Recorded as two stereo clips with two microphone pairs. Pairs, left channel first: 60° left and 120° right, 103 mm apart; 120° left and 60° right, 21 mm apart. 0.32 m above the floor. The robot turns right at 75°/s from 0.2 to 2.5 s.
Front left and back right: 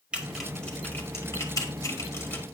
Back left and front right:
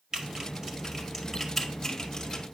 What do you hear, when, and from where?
0.1 s typing on a keyboard: 50° right, 1.7 m; by 2.5 s 115° left, 1.7 m